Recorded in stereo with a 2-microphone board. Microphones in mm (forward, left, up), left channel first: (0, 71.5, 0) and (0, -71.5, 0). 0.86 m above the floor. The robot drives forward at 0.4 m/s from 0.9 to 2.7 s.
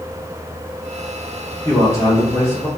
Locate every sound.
1.6 s a man speaking: 20° left (ahead or behind), 0.9 m